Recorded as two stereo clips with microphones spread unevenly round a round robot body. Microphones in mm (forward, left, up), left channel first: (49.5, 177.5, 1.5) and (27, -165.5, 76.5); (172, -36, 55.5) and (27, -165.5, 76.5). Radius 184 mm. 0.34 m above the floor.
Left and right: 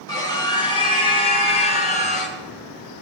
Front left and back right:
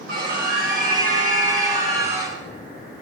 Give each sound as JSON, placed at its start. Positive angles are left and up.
{"t": 0.1, "sound": "a scream", "azimuth_deg": 165, "distance_m": 5.5}